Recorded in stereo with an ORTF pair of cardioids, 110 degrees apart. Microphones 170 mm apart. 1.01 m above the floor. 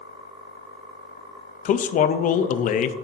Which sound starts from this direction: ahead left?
A man speaking, at 1.6 s.